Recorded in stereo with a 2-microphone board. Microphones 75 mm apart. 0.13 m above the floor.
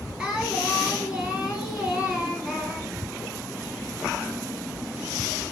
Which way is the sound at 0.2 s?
10° right (ahead or behind).